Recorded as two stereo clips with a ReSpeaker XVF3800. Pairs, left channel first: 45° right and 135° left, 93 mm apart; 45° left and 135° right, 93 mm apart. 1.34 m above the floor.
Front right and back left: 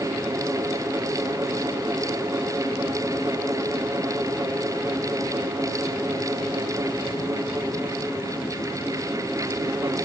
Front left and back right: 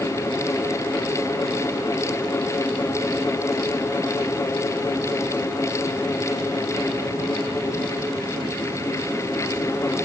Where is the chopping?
I don't hear chopping.